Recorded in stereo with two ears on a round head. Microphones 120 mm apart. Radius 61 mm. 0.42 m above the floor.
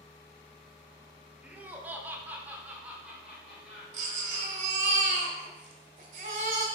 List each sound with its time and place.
1.4 s laughter: 10° right (ahead or behind), 1.0 m; by 4.7 s 5° right (ahead or behind), 2.5 m
3.9 s a baby crying: 65° right (ahead or behind), 1.7 m